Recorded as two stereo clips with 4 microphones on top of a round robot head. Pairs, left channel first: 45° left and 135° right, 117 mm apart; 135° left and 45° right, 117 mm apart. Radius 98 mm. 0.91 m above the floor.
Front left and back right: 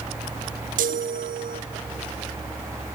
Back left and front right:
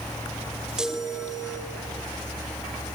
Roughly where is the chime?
Behind right.